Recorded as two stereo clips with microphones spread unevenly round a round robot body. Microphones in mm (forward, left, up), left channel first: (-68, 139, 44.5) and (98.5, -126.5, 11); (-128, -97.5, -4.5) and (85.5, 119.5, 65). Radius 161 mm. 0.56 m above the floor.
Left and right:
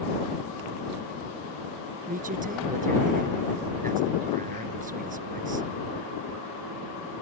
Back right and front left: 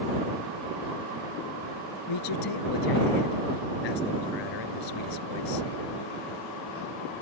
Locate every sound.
2.1 s a man speaking: 125° right